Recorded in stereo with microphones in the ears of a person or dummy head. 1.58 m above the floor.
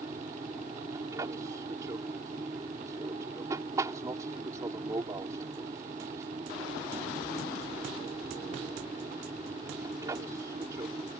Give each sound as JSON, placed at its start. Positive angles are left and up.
{"t": 0.0, "sound": "an aircraft", "side_deg": -20}